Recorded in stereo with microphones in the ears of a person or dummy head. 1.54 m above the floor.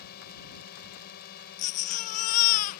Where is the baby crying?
40° left (ahead or behind).